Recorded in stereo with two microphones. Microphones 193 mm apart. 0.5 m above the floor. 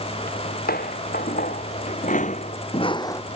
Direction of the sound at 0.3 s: 50° left (ahead or behind).